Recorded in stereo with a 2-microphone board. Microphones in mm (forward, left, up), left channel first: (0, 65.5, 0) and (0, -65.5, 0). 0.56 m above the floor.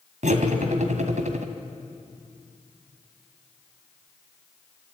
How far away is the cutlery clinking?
About 1.9 m.